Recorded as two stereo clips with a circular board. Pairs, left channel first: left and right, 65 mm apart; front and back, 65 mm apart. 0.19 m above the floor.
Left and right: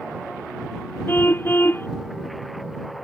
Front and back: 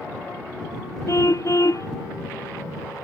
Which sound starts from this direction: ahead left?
A car horn, at 1.1 s.